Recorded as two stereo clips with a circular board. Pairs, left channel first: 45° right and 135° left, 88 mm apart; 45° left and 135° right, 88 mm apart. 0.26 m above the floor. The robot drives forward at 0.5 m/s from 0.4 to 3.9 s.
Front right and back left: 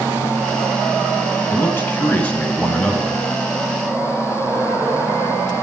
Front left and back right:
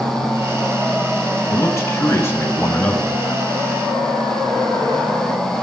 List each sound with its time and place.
1.5 s a man speaking: 10° left, 1.9 m; by 3.2 s 25° left, 1.4 m